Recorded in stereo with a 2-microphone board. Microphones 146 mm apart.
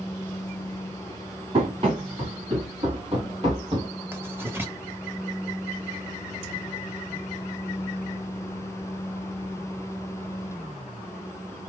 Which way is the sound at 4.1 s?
15° right (ahead or behind).